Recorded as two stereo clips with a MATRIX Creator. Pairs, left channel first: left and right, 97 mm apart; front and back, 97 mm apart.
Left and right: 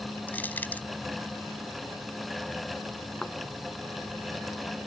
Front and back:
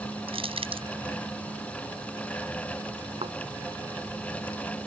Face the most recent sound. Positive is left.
turn(degrees=175)